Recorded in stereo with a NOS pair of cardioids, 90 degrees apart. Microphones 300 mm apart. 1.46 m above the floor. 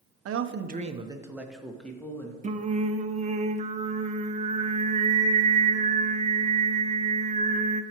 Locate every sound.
0.2 s a man speaking: 55° right, 0.8 m; by 2.3 s 10° left, 1.9 m
2.4 s singing: 25° right, 0.8 m